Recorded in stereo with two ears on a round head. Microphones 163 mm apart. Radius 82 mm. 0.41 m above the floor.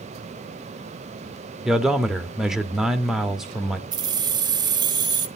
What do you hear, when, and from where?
1.6 s a man speaking: 5° right (ahead or behind), 0.8 m
3.9 s keys jangling: 25° right (ahead or behind), 0.7 m